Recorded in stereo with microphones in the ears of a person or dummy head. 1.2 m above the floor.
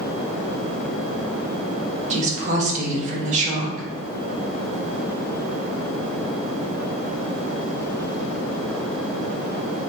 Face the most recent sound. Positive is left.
turn(degrees=-40)  # may be behind; listen again after turning